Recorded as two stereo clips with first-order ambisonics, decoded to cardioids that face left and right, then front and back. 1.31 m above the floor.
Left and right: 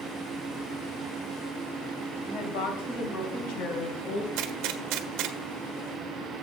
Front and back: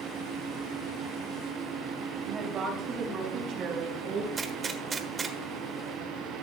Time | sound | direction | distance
2.2 | a woman speaking | 115° left | 2.5 m
4.4 | a gunshot | 110° right | 1.2 m